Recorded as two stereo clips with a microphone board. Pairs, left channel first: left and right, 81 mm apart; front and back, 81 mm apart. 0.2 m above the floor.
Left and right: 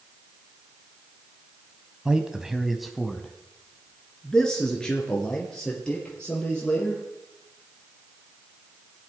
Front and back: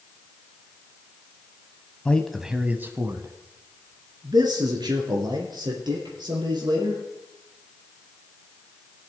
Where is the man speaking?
30° right, 1.0 m; by 7.0 s 165° left, 4.5 m.